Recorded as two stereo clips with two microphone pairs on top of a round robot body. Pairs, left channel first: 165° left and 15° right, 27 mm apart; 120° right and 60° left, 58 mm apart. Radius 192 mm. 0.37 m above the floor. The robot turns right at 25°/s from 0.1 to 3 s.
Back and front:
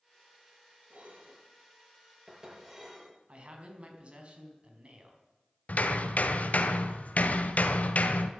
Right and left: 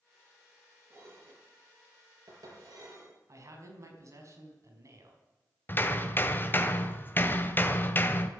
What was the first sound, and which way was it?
Dishes clattering, 10° left.